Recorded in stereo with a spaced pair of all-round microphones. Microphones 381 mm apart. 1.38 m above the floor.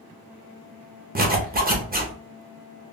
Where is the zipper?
25° right (ahead or behind), 0.7 m.